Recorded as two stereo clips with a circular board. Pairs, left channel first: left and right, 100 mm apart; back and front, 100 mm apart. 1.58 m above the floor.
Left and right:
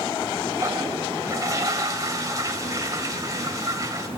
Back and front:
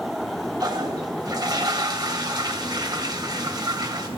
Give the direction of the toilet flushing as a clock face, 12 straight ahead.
1 o'clock.